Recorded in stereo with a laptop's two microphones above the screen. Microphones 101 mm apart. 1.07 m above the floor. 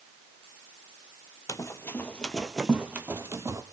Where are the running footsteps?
30° left (ahead or behind), 1.2 m; by 3.6 s 30° right (ahead or behind), 1.5 m.